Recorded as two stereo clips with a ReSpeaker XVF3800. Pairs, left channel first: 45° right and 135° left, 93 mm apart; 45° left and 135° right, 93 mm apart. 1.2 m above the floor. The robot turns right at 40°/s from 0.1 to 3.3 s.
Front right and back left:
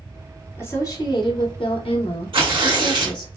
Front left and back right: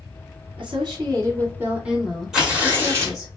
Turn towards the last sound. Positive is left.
turn(degrees=180)